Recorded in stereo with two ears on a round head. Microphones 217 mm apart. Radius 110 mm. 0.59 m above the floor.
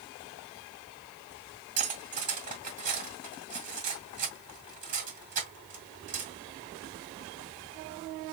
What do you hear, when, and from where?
1.8 s cutlery clinking: 35° right (ahead or behind), 2 m